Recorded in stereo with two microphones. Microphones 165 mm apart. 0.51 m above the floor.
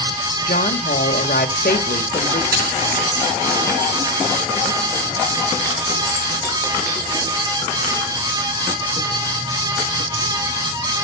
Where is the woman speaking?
65° left (ahead or behind), 1.6 m.